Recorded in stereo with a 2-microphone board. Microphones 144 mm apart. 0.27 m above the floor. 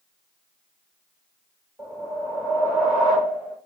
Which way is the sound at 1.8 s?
5° right (ahead or behind).